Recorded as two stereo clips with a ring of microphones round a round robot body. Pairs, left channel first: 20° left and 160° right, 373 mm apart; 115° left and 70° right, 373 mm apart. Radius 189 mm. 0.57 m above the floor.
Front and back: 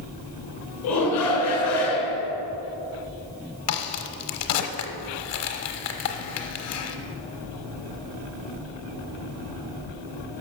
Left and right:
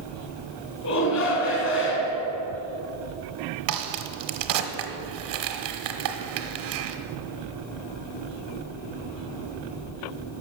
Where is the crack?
30° right, 0.9 m.